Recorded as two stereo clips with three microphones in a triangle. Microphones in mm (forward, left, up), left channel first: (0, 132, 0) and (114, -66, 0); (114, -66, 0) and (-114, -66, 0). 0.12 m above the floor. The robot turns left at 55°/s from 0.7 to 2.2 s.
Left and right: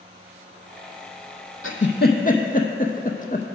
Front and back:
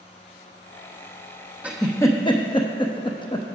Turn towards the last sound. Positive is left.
turn(degrees=65)